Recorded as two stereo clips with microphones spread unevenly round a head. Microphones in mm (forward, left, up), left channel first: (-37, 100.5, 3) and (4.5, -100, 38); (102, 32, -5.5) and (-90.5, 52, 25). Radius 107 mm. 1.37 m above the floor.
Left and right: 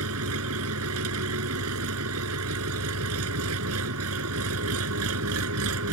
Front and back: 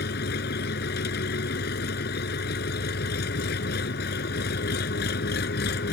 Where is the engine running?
55° right.